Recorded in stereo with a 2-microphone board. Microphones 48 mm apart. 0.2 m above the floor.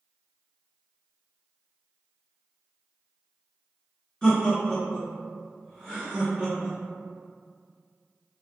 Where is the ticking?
No ticking in this recording.